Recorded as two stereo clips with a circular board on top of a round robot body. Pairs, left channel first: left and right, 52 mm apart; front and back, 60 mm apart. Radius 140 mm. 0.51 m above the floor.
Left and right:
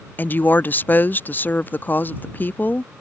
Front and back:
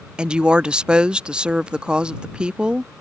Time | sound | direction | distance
0.2 | a woman speaking | 115° left | ?